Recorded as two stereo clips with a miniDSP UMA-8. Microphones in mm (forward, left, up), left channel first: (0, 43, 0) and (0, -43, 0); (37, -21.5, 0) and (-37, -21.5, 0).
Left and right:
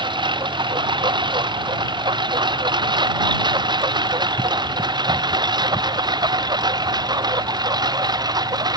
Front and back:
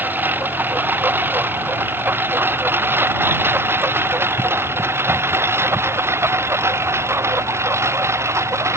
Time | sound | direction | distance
0.0 | a lawn mower | 115° right | ?